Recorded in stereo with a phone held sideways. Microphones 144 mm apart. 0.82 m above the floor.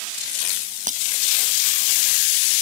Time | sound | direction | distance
0.9 | breaking glass | 60° right (ahead or behind) | ?